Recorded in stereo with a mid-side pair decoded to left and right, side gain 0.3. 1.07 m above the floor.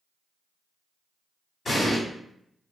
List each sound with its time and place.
1.6 s an explosion: 60° left, 1.3 m